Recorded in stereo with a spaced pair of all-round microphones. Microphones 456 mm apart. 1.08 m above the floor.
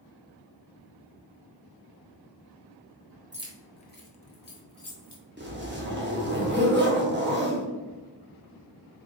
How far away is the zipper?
About 0.8 m.